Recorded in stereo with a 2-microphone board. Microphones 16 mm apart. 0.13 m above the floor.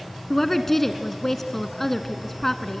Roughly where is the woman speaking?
Centre.